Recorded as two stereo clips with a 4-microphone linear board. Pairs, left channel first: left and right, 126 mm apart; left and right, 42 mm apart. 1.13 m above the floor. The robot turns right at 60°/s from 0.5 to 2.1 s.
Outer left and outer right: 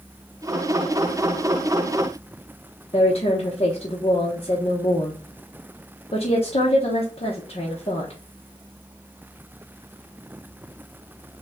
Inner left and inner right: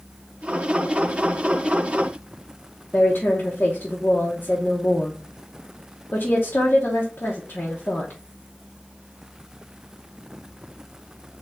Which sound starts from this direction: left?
A woman speaking, at 2.9 s.